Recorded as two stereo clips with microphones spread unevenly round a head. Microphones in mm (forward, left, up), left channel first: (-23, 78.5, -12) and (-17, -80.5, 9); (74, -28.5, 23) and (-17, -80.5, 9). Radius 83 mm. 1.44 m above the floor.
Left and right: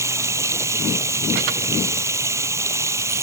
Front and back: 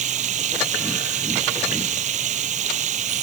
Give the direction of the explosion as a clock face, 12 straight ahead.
I don't hear an explosion.